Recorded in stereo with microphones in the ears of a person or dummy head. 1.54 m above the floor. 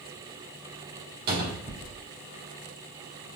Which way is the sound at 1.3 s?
60° right (ahead or behind).